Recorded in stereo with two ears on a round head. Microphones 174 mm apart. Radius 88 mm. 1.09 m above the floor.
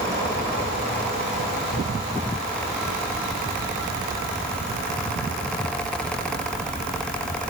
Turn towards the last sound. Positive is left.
No sound to turn to.